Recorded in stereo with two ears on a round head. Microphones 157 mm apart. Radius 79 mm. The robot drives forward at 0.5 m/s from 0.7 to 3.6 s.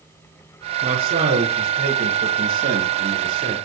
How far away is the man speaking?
About 8.5 m.